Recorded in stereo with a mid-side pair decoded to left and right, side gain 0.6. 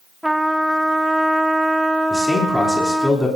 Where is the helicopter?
No helicopter in this recording.